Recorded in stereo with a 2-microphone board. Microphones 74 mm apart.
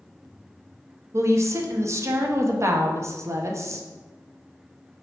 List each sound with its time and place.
1.1 s a woman speaking: 40° right (ahead or behind), 0.6 m